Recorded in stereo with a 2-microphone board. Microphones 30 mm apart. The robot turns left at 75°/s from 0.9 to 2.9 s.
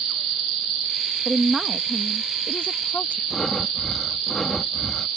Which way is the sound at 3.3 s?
15° left (ahead or behind).